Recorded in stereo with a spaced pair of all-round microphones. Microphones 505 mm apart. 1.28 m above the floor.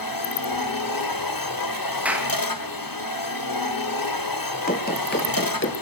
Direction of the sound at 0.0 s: 40° left (ahead or behind).